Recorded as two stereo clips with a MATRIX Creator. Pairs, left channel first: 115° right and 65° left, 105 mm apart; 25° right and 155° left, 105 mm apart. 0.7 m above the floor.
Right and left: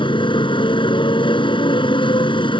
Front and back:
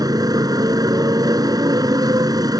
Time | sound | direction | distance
0.0 | a motorcycle | 150° right | ?